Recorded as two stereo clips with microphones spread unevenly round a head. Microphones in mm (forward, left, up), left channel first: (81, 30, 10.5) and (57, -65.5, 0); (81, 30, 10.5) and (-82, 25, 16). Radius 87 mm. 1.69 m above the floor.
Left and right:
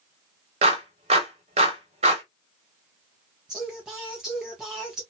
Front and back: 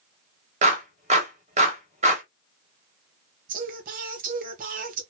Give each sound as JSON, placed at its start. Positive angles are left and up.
{"t": 0.6, "sound": "a clap", "azimuth_deg": -130, "distance_m": 1.4}
{"t": 3.5, "sound": "singing", "azimuth_deg": 165, "distance_m": 1.0}